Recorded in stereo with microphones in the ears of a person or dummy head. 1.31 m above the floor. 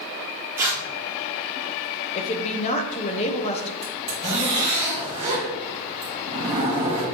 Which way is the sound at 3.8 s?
40° right (ahead or behind).